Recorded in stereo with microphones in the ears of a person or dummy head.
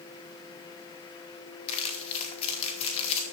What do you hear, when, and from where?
1.7 s crumpling: 35° left (ahead or behind), 2.5 m